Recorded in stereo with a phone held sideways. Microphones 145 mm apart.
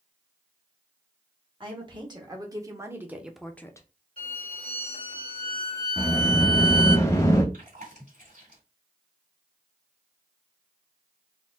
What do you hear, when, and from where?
1.6 s a woman speaking: 35° right (ahead or behind), 1.8 m; by 3.9 s 25° left (ahead or behind), 0.6 m
4.2 s a violin: 65° right (ahead or behind), 2.5 m
6.0 s a sliding door: 20° left (ahead or behind), 0.9 m
7.5 s chewing: 60° right (ahead or behind), 2.5 m